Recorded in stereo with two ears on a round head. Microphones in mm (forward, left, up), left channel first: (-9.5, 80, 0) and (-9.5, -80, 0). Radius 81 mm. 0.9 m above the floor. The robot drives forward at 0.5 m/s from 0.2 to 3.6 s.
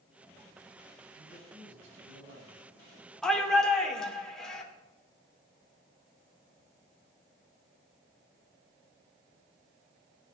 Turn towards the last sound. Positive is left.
turn(degrees=5)  # may be behind; listen again after turning